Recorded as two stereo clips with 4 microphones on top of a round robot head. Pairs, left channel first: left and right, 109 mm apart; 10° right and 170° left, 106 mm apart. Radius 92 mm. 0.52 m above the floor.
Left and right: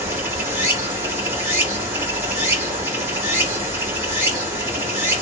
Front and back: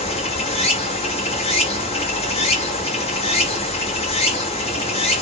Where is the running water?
20° right, 1.2 m.